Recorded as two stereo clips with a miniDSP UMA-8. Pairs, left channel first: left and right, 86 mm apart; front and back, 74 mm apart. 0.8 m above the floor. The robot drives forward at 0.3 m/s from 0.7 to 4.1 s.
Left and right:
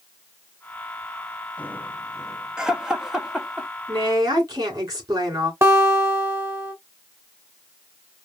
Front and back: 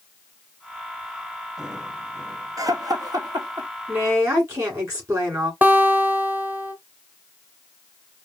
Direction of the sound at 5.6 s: 130° right.